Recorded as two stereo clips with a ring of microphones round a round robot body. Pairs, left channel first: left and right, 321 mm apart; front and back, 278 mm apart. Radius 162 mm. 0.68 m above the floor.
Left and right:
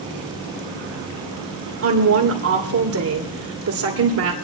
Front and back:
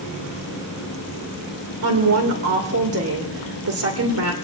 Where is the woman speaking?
135° right, 2.5 m.